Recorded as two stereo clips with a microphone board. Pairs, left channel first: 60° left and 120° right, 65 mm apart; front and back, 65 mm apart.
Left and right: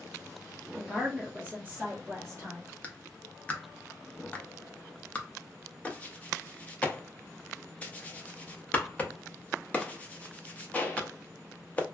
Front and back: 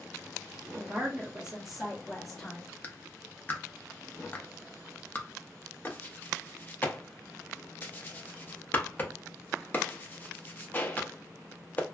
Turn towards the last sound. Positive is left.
turn(degrees=20)